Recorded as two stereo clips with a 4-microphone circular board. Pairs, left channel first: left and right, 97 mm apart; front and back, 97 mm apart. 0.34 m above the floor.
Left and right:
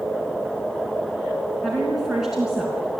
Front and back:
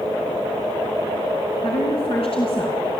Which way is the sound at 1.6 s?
Straight ahead.